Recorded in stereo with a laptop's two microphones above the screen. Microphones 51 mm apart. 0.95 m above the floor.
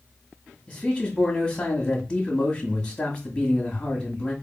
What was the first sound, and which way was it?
A man speaking, 25° left (ahead or behind).